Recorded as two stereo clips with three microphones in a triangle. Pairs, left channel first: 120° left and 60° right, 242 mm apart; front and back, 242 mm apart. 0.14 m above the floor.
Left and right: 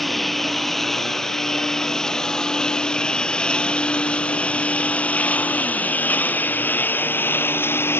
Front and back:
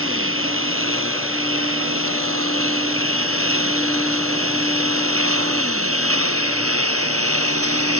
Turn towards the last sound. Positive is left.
turn(degrees=-160)